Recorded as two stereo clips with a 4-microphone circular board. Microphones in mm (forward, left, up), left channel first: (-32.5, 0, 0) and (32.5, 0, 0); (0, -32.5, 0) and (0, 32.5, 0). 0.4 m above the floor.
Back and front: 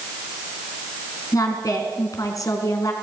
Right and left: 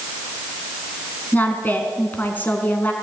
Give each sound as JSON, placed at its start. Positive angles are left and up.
{"t": 1.3, "sound": "a woman speaking", "azimuth_deg": -150, "distance_m": 4.0}